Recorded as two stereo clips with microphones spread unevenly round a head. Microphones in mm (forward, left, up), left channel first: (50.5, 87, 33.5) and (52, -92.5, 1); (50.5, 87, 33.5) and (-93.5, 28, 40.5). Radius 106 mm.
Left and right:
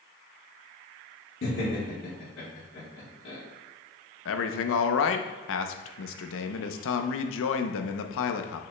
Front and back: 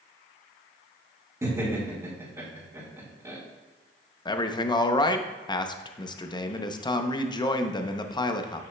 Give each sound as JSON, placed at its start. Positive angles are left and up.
{"t": 1.4, "sound": "laughter", "azimuth_deg": 135, "distance_m": 3.0}
{"t": 4.2, "sound": "a man speaking", "azimuth_deg": 85, "distance_m": 0.7}